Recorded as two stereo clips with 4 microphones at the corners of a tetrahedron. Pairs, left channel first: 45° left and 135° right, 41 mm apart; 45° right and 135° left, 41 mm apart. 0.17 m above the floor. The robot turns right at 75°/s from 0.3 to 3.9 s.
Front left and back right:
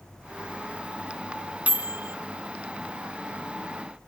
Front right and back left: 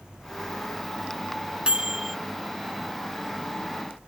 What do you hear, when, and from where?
1.7 s a microwave: 170° right; by 2.1 s 135° right